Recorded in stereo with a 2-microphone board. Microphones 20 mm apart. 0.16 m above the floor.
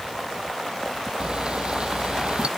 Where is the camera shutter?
55° right (ahead or behind).